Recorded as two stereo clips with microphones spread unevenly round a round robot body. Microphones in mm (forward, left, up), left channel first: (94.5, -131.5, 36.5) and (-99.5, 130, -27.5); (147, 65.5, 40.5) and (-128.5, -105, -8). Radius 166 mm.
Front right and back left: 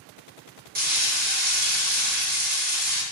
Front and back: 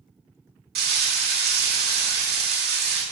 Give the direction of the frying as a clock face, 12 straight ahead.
6 o'clock.